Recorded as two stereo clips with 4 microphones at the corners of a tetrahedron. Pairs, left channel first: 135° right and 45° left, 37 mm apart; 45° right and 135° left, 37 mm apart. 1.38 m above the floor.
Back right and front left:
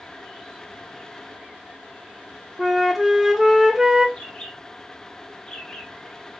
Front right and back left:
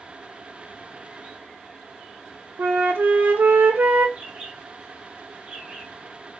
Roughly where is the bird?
Behind.